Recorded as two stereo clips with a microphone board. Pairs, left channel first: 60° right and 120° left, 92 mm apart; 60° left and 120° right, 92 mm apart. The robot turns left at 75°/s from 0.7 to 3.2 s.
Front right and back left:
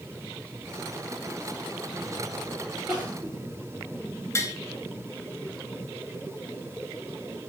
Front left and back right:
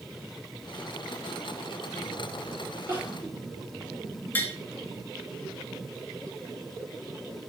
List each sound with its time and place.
2.9 s crying: straight behind, 4 m; by 3.3 s 155° left, 4 m
4.3 s tapping: 5° right, 1.3 m